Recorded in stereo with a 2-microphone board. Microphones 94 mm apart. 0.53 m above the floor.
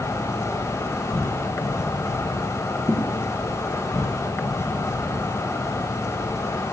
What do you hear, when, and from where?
0.0 s an insect: 30° left (ahead or behind), 1.3 m
2.9 s a thud: 25° left (ahead or behind), 2 m